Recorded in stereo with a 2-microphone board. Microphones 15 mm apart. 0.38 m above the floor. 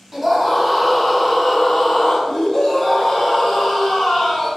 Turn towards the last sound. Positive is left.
turn(degrees=55)  # may be behind; listen again after turning